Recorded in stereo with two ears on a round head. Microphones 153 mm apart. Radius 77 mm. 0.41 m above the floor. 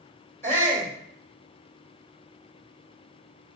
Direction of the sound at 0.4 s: 15° left (ahead or behind).